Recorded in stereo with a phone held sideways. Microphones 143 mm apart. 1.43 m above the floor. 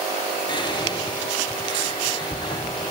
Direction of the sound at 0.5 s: 30° left (ahead or behind).